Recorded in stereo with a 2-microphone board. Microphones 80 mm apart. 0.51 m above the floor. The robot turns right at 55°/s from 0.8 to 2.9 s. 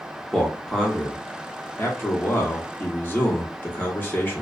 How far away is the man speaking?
About 0.9 m.